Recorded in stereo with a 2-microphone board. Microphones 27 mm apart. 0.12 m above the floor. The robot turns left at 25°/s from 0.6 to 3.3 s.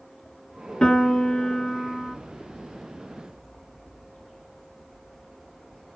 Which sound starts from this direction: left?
A piano, at 0.8 s.